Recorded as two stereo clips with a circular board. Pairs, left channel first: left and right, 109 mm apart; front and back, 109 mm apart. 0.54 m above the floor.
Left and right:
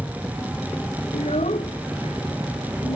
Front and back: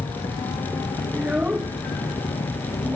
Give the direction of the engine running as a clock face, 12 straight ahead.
12 o'clock.